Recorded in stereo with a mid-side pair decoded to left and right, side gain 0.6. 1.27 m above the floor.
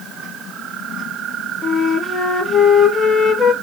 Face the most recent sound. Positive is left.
turn(degrees=30)